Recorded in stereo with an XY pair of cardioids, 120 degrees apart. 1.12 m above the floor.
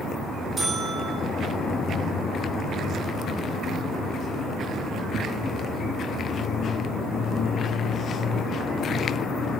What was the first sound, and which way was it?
A buzzer, 30° right.